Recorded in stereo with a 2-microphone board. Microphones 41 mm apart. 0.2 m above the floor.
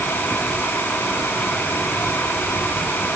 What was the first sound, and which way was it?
Only background noise.